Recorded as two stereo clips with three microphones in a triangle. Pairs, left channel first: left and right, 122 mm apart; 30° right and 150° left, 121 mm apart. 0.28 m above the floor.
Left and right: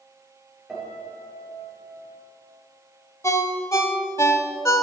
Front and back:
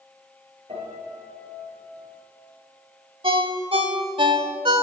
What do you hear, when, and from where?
0.7 s a piano: straight behind, 4 m
3.2 s a ringtone: 145° left, 0.8 m